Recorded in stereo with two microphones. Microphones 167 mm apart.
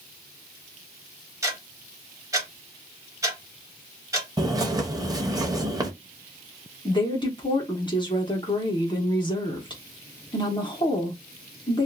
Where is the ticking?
20° right (ahead or behind), 1.1 m.